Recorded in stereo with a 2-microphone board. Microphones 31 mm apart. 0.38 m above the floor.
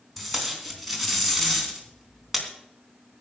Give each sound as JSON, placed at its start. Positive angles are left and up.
{"t": 0.2, "sound": "tape being pulled", "side_deg": 0, "distance_m": 3.5}